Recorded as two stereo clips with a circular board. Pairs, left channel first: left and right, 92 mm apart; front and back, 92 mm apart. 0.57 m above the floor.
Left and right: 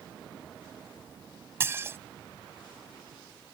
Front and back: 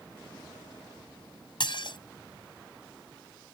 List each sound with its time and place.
1.6 s dishes clattering: 25° right